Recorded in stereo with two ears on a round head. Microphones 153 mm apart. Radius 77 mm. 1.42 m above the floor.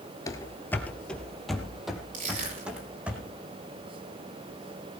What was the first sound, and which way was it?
Running footsteps, 20° left (ahead or behind).